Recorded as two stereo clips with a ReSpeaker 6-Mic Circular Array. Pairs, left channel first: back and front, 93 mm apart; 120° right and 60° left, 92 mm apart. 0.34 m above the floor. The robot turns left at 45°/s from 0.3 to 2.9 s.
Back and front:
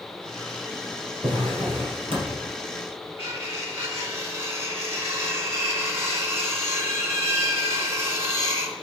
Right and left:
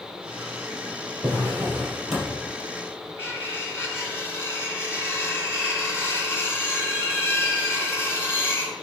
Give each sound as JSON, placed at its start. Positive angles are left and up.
{"t": 1.2, "sound": "a drawer", "azimuth_deg": 15, "distance_m": 4.0}
{"t": 3.2, "sound": "cutlery clinking", "azimuth_deg": -60, "distance_m": 1.9}